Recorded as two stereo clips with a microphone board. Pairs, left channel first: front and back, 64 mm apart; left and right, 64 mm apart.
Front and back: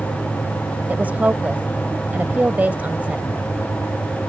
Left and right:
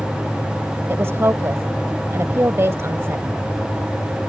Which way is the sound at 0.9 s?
125° right.